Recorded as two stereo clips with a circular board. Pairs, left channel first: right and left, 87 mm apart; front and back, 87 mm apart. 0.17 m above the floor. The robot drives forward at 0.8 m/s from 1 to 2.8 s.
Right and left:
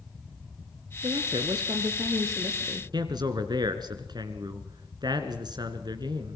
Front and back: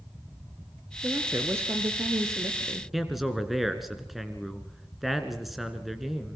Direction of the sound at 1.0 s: 115° left.